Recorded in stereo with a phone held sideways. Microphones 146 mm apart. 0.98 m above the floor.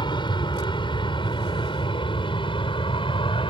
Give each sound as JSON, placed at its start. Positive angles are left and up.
{"t": 0.0, "sound": "an aircraft", "side_deg": 30}